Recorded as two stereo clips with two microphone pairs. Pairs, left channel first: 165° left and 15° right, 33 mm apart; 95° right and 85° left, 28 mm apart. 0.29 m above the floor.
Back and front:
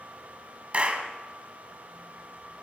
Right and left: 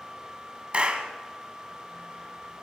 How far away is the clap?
About 2.0 m.